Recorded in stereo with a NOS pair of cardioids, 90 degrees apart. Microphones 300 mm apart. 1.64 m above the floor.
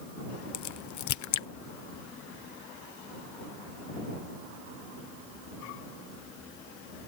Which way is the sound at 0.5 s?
65° left.